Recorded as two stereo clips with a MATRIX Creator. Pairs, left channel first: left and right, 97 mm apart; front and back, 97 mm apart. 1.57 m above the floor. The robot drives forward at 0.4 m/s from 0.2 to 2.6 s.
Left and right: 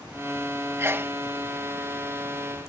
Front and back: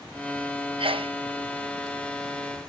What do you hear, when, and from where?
0.8 s a sneeze: 155° right; by 1.1 s 160° right